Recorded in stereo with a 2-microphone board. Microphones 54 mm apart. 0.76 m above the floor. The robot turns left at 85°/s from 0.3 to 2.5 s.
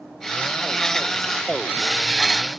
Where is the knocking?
I don't hear knocking.